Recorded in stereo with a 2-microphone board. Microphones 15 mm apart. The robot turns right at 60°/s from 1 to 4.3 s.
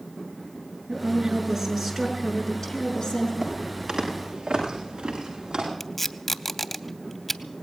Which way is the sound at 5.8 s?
10° left (ahead or behind).